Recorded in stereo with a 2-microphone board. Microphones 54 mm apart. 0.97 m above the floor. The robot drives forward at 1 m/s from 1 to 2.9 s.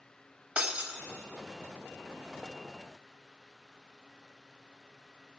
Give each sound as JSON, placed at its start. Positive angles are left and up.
{"t": 0.6, "sound": "breaking glass", "side_deg": -25, "distance_m": 0.8}